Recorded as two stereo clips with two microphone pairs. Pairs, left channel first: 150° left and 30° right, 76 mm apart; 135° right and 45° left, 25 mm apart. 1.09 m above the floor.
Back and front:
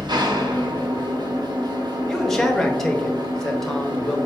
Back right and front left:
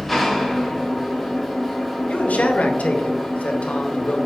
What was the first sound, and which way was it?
An engine running, 45° right.